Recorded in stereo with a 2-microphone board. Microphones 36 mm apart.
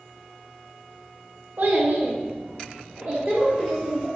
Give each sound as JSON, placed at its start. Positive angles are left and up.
{"t": 1.6, "sound": "a child speaking", "side_deg": -50, "distance_m": 0.8}